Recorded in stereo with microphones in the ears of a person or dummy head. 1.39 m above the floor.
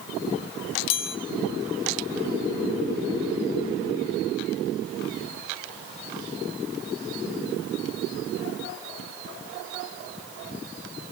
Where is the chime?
60° left (ahead or behind), 1.1 m.